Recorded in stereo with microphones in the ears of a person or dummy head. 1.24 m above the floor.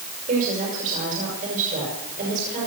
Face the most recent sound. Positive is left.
turn(degrees=-45)  # may be behind; listen again after turning